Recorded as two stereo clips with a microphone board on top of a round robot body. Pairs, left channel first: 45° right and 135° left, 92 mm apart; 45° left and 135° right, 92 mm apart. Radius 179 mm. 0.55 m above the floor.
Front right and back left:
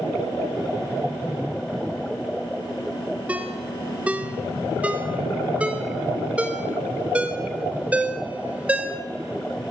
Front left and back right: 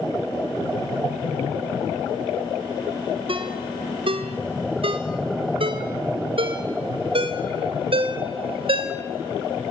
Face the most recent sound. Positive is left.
turn(degrees=-150)